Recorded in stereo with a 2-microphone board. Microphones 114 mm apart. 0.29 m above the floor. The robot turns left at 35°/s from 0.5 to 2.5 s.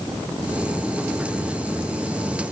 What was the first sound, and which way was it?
Only background noise.